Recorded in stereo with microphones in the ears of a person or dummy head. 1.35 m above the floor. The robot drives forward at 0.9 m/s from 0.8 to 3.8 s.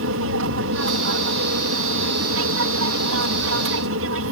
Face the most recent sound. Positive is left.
turn(degrees=-60)  # may be behind; listen again after turning